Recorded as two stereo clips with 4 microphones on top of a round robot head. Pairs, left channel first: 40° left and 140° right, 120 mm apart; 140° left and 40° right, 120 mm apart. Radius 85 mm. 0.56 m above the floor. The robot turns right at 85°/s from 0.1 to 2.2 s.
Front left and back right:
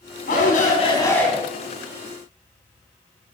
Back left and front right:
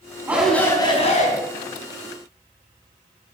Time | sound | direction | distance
0.3 | a shout | 35° left | 5 m